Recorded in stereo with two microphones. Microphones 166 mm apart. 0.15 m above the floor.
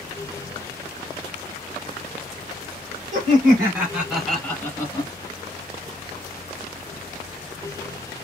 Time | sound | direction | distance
3.1 | laughter | 30° right (ahead or behind) | 1.5 m